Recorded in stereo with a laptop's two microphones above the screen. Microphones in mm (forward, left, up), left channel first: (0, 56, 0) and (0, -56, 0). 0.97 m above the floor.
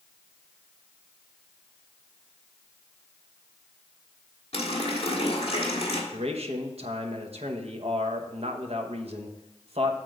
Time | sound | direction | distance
4.5 | a running tap | 60° left (ahead or behind) | 1.5 m
6.1 | a man speaking | 65° right (ahead or behind) | 1.0 m